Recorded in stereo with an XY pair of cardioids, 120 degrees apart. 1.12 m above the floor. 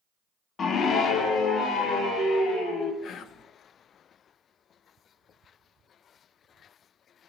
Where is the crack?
No crack in this recording.